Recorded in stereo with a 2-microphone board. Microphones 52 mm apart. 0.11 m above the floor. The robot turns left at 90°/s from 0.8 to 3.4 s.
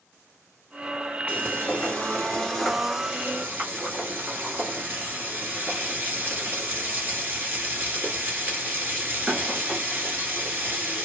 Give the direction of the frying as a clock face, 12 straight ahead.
8 o'clock.